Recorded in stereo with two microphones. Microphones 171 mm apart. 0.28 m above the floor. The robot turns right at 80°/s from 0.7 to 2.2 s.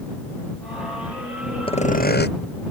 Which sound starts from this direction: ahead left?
Sawing, at 1.7 s.